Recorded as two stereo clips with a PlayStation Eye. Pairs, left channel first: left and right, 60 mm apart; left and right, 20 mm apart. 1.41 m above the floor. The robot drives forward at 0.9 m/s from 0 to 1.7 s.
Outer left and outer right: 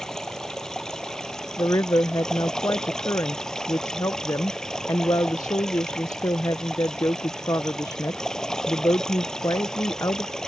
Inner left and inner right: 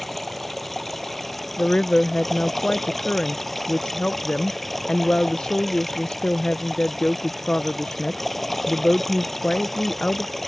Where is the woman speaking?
55° left (ahead or behind); by 10.3 s 65° left (ahead or behind).